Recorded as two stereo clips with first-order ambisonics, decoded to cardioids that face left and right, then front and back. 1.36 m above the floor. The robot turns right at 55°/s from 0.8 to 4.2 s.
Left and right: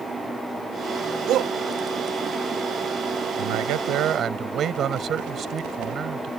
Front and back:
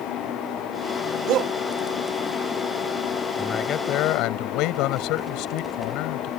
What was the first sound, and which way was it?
A shout, 140° right.